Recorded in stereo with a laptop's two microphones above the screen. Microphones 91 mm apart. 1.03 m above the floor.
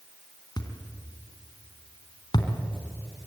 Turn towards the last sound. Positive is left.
turn(degrees=50)  # may be behind; listen again after turning